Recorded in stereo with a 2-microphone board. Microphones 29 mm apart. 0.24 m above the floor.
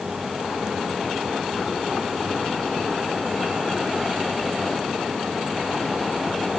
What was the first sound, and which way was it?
Only background noise.